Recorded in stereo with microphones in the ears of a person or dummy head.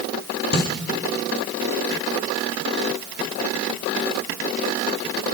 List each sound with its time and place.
0.5 s a snare drum: 55° left (ahead or behind), 3 m